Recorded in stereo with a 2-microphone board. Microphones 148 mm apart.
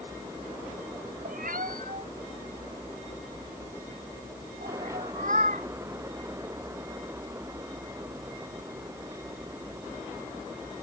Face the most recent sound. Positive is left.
turn(degrees=-60)  # may be behind; listen again after turning